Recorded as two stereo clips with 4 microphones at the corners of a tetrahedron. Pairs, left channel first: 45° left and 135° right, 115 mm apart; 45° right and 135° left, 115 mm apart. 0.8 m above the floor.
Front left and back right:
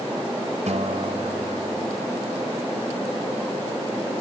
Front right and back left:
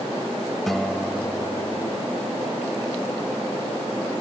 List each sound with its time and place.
0.7 s a guitar: 135° right